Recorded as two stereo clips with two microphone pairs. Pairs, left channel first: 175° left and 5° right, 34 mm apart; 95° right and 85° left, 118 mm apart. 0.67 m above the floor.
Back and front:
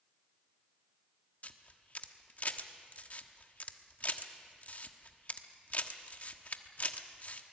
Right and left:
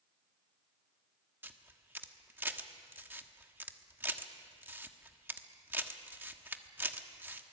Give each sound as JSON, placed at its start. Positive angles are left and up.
{"t": 1.4, "sound": "a camera shutter", "azimuth_deg": 150, "distance_m": 1.2}